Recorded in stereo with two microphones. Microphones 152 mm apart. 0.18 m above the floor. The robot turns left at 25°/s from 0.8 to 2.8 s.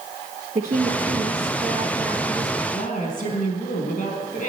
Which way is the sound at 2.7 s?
55° left (ahead or behind).